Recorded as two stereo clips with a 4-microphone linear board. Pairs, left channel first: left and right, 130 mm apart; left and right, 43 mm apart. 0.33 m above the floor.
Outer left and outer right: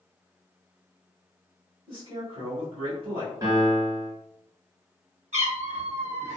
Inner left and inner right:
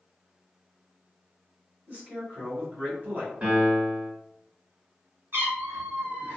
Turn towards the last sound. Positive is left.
turn(degrees=-60)  # may be behind; listen again after turning